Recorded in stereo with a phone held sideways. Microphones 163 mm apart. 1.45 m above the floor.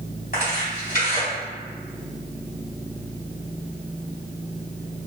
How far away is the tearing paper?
About 2.0 m.